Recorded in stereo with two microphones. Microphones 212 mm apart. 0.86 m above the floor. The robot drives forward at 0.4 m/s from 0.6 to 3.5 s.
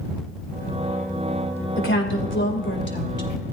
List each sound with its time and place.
1.8 s a woman speaking: 60° left (ahead or behind), 3 m; by 3.3 s 50° left (ahead or behind), 3 m